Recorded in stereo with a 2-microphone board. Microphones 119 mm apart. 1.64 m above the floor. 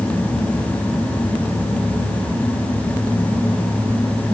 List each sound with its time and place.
Only background noise.